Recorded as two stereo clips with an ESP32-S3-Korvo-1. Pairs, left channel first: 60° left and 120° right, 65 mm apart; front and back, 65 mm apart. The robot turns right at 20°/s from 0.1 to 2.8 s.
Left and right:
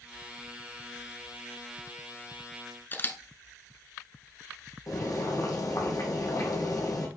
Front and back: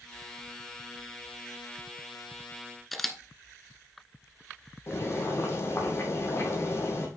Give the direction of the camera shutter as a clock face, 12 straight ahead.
9 o'clock.